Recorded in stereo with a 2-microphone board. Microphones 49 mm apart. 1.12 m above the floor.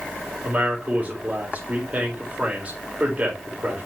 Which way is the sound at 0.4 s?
30° right (ahead or behind).